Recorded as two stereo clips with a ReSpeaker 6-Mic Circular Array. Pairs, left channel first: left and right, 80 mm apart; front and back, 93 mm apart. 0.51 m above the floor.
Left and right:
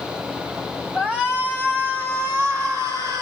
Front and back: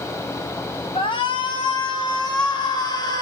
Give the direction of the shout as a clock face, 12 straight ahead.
12 o'clock.